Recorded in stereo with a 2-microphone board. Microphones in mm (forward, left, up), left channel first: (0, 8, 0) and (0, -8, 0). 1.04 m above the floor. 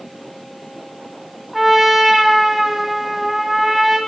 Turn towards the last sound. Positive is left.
turn(degrees=-15)  # may be behind; listen again after turning